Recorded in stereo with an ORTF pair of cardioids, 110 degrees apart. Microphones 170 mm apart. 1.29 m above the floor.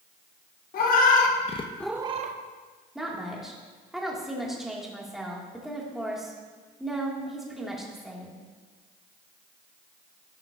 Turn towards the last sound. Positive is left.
turn(degrees=-5)